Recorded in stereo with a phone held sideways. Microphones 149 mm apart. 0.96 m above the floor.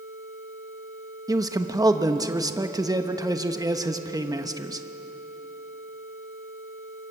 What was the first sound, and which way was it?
A man speaking, 25° right (ahead or behind).